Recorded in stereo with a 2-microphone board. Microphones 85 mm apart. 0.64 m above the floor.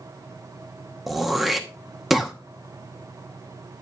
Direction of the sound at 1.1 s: Centre (ahead or behind).